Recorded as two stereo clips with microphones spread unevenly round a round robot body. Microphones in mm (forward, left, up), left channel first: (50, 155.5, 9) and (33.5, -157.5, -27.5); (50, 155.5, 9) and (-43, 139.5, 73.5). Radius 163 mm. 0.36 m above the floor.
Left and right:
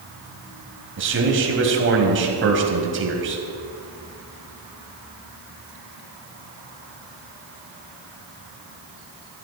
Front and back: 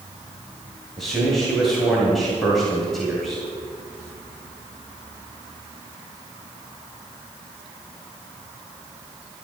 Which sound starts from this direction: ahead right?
A man speaking, at 1.0 s.